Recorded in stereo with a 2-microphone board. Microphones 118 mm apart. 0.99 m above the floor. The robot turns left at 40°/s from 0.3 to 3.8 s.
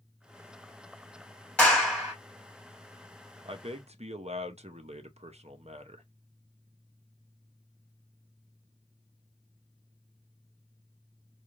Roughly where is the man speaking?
Right.